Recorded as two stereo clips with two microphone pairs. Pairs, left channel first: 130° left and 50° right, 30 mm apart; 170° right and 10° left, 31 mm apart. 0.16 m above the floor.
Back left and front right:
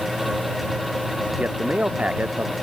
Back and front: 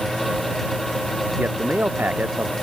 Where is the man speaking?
5° right.